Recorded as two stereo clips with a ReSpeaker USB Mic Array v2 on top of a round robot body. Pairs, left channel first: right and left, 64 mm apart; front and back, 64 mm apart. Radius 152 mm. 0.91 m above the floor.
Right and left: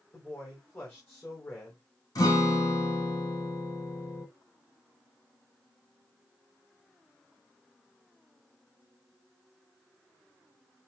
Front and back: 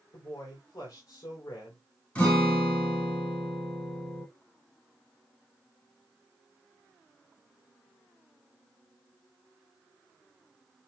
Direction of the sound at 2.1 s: 70° right.